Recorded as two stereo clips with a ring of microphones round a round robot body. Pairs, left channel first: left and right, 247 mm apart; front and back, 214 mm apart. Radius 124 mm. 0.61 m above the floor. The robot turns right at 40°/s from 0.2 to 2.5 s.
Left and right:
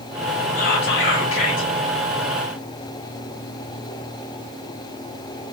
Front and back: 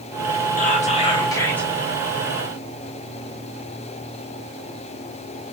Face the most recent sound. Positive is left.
turn(degrees=120)